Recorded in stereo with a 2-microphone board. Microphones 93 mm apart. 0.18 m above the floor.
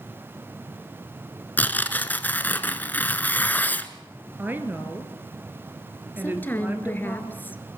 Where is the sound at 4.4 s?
20° right (ahead or behind), 2.5 m.